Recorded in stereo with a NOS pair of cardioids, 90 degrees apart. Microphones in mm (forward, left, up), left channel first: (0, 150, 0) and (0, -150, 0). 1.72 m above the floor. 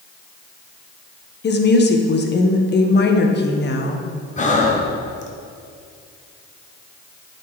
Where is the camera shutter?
I don't hear a camera shutter.